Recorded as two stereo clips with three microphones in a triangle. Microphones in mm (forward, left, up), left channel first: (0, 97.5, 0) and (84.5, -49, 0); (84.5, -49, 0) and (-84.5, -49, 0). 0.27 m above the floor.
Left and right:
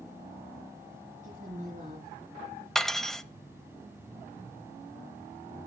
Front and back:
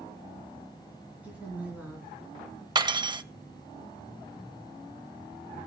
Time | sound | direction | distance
1.2 | a woman speaking | 100° right | 3 m
2.8 | cutlery clinking | 155° right | 0.5 m